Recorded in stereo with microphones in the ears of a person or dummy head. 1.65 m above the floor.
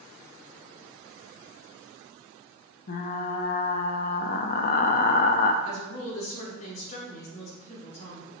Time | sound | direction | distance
2.9 | frying | 50° left (ahead or behind) | 0.6 m
5.6 | a woman speaking | 50° left (ahead or behind) | 2.5 m